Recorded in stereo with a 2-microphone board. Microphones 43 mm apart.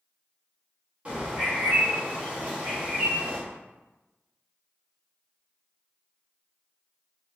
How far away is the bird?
About 1.3 m.